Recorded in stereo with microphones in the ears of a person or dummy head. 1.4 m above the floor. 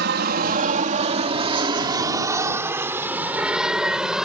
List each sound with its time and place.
0.0 s an aircraft: 50° right (ahead or behind); by 4.2 s 5° right (ahead or behind)